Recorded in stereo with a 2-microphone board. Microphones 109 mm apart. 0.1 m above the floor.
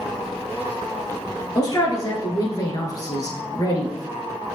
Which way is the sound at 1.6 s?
35° left (ahead or behind).